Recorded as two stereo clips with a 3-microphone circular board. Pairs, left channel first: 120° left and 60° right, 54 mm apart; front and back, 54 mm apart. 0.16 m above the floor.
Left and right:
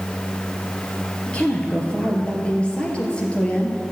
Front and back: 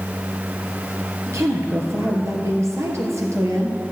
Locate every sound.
1.3 s a woman speaking: 170° right, 2.5 m